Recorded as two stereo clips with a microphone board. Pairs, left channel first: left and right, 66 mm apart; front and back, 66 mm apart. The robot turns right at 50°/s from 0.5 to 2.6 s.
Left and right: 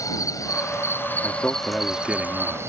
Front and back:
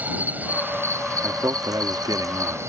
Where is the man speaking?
145° left; by 2.6 s 145° right.